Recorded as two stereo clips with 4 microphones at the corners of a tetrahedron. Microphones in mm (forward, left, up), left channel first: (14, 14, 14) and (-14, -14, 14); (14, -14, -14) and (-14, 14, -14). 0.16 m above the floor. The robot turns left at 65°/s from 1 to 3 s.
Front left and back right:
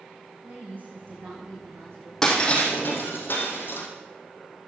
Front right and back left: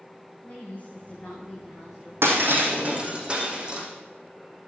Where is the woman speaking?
90° right, 9.5 m; by 2.1 s 160° right, 9.5 m.